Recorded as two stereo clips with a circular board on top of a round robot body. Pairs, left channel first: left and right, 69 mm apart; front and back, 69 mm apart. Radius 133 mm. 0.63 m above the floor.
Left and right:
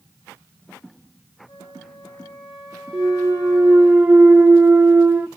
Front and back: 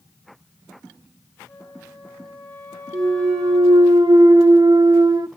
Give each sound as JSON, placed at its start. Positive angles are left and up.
{"t": 1.5, "sound": "a flute", "azimuth_deg": 80, "distance_m": 4.5}
{"t": 2.9, "sound": "a clunk", "azimuth_deg": -160, "distance_m": 0.7}